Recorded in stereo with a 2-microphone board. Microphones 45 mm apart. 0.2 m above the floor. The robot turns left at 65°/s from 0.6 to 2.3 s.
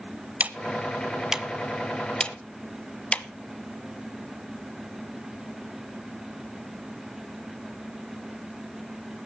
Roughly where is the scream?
No scream in this recording.